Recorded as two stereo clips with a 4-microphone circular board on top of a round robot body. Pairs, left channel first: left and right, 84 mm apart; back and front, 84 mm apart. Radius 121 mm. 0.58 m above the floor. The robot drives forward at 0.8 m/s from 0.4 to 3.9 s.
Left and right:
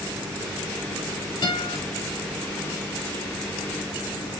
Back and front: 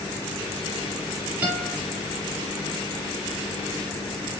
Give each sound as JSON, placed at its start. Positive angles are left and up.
{"t": 1.4, "sound": "a guitar", "azimuth_deg": 70, "distance_m": 4.0}